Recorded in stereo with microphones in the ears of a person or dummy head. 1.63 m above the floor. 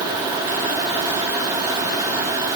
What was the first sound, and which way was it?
Only background noise.